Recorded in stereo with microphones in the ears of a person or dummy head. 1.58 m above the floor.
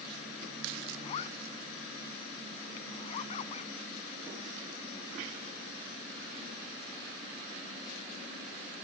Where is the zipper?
40° left (ahead or behind).